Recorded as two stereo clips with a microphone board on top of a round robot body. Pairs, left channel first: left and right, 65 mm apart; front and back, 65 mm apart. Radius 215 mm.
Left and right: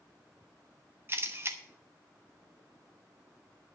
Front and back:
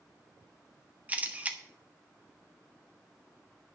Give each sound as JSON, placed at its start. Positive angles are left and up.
{"t": 1.1, "sound": "a camera shutter", "azimuth_deg": -120, "distance_m": 1.6}